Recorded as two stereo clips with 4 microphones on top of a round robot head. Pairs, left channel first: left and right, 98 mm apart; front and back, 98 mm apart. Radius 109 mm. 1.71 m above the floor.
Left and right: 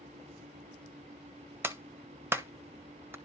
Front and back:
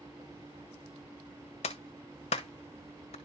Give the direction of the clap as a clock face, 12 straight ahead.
1 o'clock.